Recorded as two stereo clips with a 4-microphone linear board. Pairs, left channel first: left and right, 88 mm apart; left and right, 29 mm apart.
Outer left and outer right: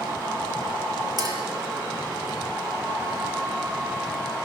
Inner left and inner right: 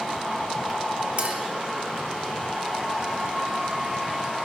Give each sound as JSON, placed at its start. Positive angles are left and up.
{"t": 1.2, "sound": "a clink", "side_deg": -50, "distance_m": 2.0}